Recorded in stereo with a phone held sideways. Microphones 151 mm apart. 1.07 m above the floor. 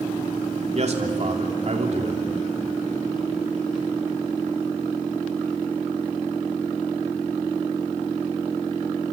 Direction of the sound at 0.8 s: 50° right (ahead or behind).